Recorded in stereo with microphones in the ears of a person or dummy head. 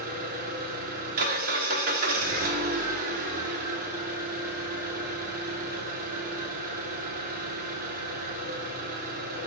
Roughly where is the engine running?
Right.